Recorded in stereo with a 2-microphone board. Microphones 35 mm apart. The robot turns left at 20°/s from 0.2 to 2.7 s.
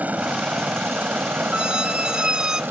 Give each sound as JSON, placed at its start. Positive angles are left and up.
{"t": 0.0, "sound": "a helicopter", "side_deg": -50}
{"t": 1.5, "sound": "a squeak", "side_deg": -30}